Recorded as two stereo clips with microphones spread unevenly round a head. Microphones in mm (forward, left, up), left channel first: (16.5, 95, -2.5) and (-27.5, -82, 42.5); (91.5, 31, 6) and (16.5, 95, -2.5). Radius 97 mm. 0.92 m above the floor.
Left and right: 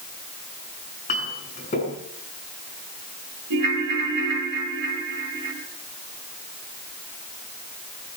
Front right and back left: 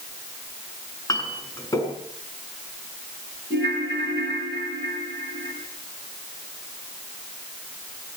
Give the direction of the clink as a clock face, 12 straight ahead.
11 o'clock.